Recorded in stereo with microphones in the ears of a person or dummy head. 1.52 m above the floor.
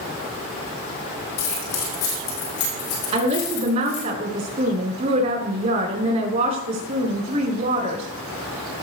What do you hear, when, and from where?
1.4 s keys jangling: 75° left (ahead or behind), 4 m; by 4.0 s 50° left (ahead or behind), 4 m
3.1 s a woman speaking: 40° right (ahead or behind), 4 m